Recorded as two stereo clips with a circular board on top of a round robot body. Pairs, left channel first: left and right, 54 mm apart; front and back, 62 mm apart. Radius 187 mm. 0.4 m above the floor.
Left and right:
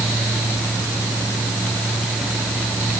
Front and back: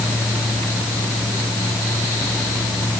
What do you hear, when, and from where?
Only background noise.